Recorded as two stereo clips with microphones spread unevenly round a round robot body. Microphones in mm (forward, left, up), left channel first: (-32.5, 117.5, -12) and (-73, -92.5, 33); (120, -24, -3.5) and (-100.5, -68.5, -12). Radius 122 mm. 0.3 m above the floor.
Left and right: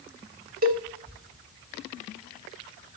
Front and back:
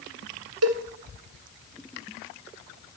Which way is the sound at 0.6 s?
150° right.